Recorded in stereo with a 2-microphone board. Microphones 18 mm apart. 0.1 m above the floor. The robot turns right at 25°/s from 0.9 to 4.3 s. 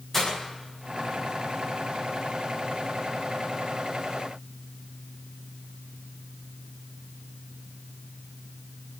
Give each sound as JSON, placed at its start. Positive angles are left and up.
{"t": 0.1, "sound": "breaking glass", "side_deg": 20, "distance_m": 9.5}